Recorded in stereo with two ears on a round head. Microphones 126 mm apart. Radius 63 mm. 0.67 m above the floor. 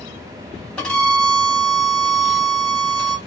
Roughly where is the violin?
Centre.